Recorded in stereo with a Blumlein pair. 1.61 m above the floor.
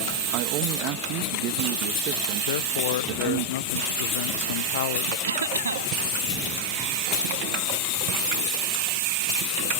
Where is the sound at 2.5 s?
55° left.